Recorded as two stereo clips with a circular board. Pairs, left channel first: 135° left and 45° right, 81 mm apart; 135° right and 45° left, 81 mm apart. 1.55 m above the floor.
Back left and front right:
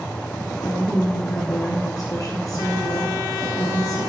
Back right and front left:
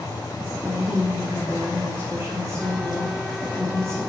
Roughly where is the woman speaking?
Left.